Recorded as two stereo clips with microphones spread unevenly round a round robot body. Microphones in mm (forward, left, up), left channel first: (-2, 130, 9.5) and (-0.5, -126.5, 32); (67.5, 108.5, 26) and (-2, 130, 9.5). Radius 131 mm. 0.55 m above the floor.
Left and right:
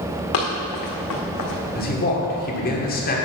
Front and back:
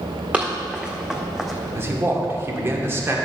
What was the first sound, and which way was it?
Running footsteps, 85° left.